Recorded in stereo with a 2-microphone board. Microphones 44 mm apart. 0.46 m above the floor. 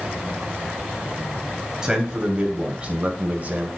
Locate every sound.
1.8 s a man speaking: 15° right (ahead or behind), 2.5 m; by 3.7 s 40° right (ahead or behind), 1.7 m